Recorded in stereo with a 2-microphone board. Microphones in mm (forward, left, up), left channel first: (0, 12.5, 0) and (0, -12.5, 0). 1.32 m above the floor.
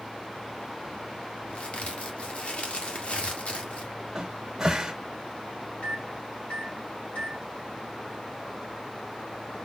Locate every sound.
1.5 s a crack: 60° left (ahead or behind), 1.5 m
4.2 s a cupboard door: 25° right (ahead or behind), 1.6 m
5.8 s a microwave: 60° left (ahead or behind), 1.9 m